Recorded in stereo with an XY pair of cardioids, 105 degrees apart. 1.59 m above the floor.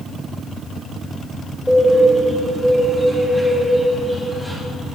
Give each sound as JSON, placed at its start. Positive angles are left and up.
{"t": 1.7, "sound": "a bird", "azimuth_deg": 0, "distance_m": 3.0}